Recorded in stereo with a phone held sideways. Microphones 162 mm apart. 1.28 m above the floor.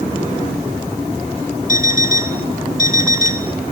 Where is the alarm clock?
60° left (ahead or behind), 1.6 m.